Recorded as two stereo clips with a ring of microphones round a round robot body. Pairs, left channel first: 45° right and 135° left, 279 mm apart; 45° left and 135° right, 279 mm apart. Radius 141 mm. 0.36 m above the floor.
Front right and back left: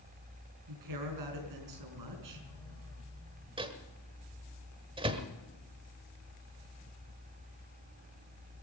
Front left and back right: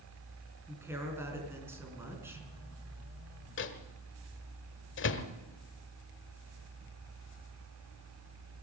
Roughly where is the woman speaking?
Behind left.